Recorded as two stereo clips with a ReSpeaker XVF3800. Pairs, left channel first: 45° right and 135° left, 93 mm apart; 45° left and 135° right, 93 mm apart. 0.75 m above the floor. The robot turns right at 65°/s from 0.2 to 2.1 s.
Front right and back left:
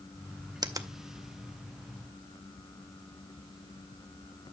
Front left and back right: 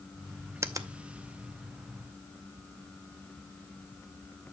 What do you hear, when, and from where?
0.6 s a finger snap: 170° left, 0.6 m; by 0.9 s 170° right, 0.6 m